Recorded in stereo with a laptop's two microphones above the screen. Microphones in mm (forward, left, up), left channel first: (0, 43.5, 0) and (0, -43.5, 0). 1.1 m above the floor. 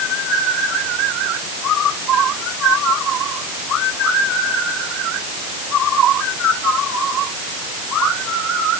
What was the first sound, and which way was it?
Only background noise.